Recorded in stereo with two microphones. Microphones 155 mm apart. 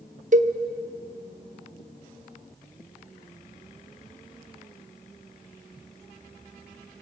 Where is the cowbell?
55° right (ahead or behind), 0.7 m.